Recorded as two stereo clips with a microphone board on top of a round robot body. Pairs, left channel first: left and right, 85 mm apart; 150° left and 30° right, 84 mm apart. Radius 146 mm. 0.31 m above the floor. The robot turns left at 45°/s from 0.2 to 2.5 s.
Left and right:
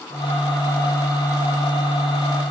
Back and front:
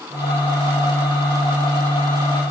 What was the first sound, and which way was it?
Only background noise.